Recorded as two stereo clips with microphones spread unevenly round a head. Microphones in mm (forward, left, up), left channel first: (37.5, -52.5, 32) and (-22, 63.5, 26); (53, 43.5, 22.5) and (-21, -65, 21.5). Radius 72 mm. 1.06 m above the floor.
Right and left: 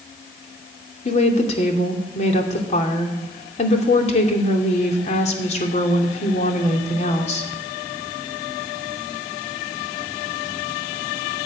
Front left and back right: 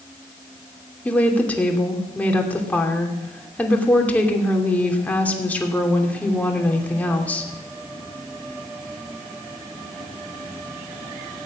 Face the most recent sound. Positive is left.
turn(degrees=-25)